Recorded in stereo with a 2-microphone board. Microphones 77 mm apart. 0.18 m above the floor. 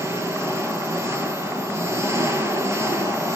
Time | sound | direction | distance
0.0 | an engine running | 35° right (ahead or behind) | 3 m